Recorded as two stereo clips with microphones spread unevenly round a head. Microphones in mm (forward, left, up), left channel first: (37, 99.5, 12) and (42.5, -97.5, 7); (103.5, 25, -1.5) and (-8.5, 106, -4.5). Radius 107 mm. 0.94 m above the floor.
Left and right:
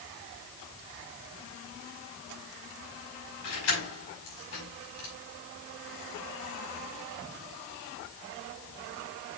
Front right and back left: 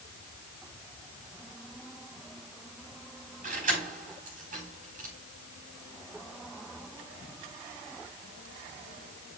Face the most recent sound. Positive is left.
turn(degrees=115)